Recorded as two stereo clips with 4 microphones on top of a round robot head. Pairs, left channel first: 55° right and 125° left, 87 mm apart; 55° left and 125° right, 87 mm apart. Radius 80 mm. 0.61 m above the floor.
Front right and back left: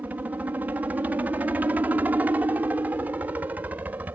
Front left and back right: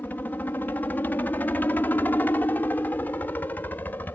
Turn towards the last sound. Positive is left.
turn(degrees=85)